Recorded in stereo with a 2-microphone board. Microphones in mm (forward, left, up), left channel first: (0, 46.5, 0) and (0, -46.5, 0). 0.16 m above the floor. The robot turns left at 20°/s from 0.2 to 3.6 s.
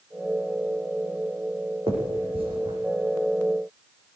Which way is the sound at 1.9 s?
80° right.